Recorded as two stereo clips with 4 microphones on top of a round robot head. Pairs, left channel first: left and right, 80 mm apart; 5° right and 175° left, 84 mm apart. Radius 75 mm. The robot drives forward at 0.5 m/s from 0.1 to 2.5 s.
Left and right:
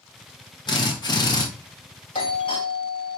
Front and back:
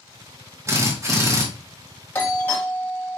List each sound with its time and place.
0.7 s a drill: 120° left, 2.5 m; by 1.5 s 125° left, 3 m
2.1 s a doorbell: 65° left, 3 m; by 3.2 s 70° left, 3 m